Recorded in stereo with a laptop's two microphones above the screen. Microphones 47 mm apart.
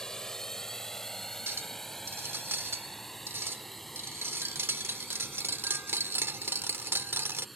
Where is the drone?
10° left (ahead or behind); by 7.6 s centre (ahead or behind).